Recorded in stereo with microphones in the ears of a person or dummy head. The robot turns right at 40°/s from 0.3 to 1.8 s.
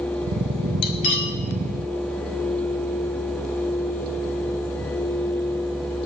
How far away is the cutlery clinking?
About 1.0 m.